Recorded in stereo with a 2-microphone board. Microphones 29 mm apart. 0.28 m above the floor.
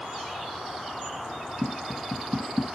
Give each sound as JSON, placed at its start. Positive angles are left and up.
{"t": 1.6, "sound": "tapping", "side_deg": -75, "distance_m": 0.7}